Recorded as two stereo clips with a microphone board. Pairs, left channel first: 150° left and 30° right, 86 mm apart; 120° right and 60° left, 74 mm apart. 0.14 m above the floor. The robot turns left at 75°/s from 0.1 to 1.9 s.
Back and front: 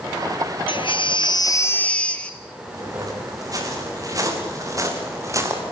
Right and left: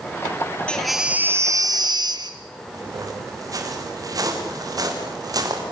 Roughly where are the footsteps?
Ahead.